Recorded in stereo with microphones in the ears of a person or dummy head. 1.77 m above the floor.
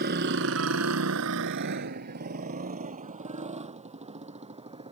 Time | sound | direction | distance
0.0 | a motorcycle | 50° right (ahead or behind) | ?